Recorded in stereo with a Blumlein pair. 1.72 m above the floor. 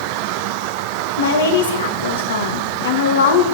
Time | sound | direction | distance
1.2 | a woman speaking | 65° left | 2 m